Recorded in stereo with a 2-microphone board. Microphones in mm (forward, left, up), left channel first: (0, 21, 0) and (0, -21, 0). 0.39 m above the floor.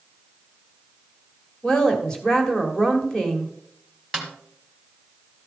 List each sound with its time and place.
1.6 s a woman speaking: 15° left (ahead or behind), 1.9 m
4.1 s a snare drum: 5° left (ahead or behind), 1.9 m